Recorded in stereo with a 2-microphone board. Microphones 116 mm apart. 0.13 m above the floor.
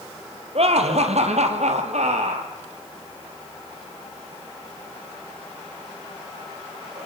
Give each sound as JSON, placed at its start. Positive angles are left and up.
{"t": 0.6, "sound": "laughter", "side_deg": -60, "distance_m": 3.0}